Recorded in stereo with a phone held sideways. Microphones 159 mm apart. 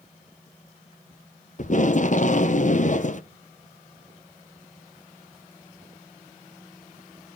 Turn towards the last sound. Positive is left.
turn(degrees=50)  # may be behind; listen again after turning